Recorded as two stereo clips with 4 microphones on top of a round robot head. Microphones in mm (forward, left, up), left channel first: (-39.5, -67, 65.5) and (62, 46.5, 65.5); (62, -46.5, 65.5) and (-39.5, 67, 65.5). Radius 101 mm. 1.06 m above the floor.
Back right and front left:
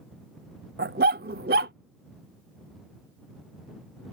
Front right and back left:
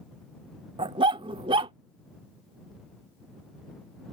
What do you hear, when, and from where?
0.8 s a dog barking: 75° left